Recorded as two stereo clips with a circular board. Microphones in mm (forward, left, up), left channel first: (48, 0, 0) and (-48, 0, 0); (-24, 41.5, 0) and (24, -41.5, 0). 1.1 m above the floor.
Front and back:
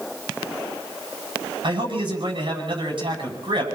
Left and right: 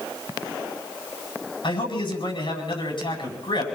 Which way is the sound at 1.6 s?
145° left.